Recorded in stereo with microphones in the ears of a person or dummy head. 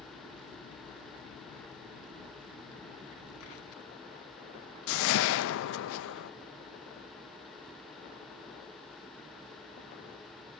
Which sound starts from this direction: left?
A whoosh, at 4.9 s.